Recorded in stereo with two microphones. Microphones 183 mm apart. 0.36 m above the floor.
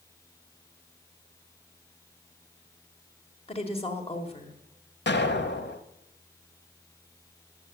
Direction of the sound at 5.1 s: 75° left (ahead or behind).